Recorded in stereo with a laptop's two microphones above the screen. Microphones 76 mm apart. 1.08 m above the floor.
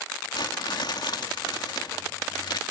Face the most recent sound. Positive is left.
turn(degrees=70)  # may be behind; listen again after turning